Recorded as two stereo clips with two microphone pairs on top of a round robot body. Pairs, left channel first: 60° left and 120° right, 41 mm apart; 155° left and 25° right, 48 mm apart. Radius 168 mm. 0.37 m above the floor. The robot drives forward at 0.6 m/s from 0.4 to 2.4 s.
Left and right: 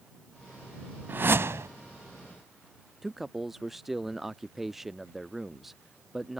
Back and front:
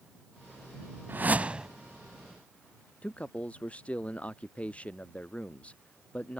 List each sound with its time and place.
1.1 s a whoosh: 75° right; by 1.7 s 100° right
3.0 s a man speaking: 155° left